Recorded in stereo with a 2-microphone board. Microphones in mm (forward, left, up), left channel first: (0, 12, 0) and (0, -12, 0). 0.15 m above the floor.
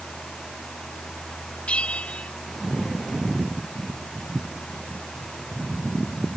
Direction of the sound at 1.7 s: 55° left (ahead or behind).